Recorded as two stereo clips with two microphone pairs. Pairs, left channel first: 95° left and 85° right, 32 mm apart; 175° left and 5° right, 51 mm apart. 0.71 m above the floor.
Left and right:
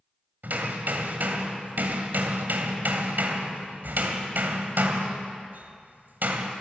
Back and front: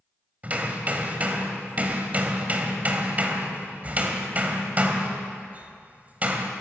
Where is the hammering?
65° right, 3 m.